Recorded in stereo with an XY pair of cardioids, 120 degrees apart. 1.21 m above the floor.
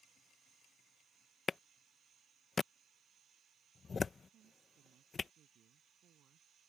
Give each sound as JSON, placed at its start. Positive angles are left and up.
{"t": 1.5, "sound": "a clap", "azimuth_deg": 30}
{"t": 4.3, "sound": "a woman speaking", "azimuth_deg": -60}